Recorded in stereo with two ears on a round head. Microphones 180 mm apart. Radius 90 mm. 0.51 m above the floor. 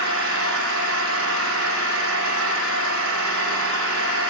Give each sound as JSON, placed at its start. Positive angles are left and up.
{"t": 0.0, "sound": "an engine running", "side_deg": -75, "distance_m": 8.5}